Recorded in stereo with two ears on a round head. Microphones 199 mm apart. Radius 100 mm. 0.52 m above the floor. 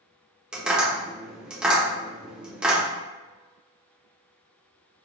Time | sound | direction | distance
0.5 | tapping | 5° right (ahead or behind) | 0.9 m